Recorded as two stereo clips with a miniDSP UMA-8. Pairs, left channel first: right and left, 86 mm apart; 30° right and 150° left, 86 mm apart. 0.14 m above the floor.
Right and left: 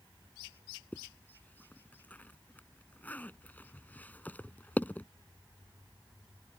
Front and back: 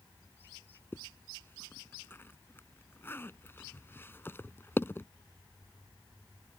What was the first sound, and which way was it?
A zipper, 50° right.